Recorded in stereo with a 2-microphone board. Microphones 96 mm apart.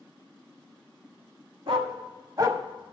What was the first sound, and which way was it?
A dog barking, 70° right (ahead or behind).